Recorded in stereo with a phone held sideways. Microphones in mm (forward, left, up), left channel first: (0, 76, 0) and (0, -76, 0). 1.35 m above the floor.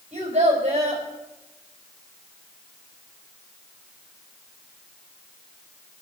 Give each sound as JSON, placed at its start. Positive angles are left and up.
{"t": 0.1, "sound": "a child speaking", "side_deg": -45, "distance_m": 4.5}